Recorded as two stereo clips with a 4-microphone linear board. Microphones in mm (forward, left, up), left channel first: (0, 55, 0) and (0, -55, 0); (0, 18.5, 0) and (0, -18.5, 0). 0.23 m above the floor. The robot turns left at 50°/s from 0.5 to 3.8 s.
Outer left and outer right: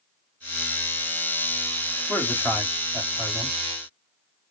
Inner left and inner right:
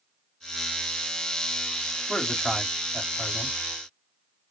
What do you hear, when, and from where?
2.1 s a man speaking: 50° right, 1.7 m; by 3.6 s 125° right, 1.7 m